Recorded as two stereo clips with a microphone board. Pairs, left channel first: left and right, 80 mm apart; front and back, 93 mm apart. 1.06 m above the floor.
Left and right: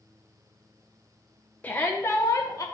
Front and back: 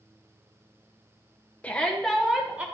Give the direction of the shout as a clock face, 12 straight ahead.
10 o'clock.